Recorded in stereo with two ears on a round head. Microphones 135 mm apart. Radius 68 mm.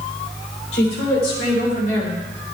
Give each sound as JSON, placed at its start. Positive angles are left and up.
{"t": 0.7, "sound": "a woman speaking", "side_deg": 80, "distance_m": 3.0}